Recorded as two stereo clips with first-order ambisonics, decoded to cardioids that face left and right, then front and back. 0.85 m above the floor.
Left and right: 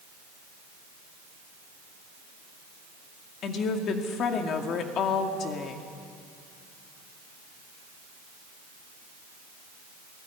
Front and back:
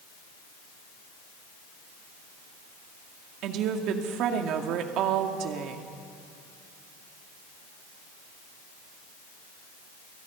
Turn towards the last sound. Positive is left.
turn(degrees=140)